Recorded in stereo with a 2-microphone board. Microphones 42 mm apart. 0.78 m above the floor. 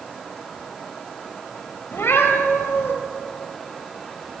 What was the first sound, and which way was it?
A cat meowing, 70° left (ahead or behind).